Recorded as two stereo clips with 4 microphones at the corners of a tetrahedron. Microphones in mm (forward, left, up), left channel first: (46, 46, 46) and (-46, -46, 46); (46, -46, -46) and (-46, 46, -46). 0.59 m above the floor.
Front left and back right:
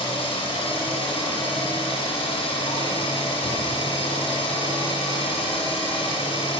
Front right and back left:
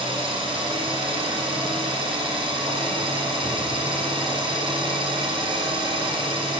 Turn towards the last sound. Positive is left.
turn(degrees=90)